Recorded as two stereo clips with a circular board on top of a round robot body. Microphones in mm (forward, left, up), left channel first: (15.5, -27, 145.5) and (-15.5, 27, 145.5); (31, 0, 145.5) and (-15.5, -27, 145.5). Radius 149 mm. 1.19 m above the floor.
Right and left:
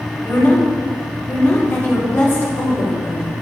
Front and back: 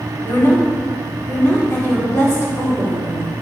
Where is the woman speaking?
5° right, 4.5 m.